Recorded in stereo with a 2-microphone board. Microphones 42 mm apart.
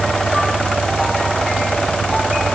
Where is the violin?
I don't hear a violin.